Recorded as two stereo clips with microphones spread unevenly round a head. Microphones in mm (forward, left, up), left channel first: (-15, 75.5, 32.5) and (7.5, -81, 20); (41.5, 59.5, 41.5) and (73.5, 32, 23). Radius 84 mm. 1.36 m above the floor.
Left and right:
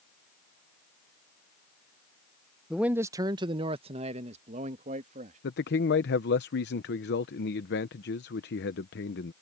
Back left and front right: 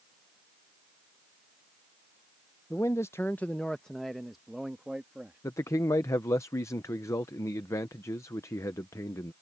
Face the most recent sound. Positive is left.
turn(degrees=125)